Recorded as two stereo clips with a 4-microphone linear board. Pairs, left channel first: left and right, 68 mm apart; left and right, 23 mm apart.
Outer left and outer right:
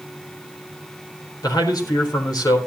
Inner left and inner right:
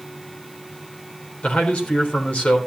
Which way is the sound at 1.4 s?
80° left.